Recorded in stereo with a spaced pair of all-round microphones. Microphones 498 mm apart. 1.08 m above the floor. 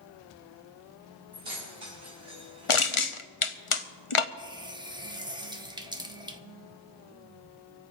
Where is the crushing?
75° left (ahead or behind), 0.9 m.